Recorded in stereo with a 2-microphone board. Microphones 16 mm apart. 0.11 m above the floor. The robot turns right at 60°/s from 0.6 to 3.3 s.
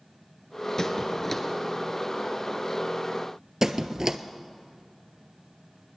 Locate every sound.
0.8 s a squeak: 30° left (ahead or behind), 1.2 m; by 1.4 s 5° left (ahead or behind), 1.2 m
3.6 s a squeak: 35° right (ahead or behind), 0.6 m